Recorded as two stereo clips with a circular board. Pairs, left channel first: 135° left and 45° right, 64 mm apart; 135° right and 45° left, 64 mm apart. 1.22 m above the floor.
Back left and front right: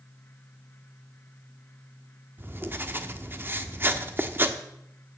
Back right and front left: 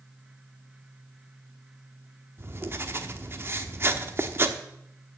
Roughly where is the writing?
Ahead.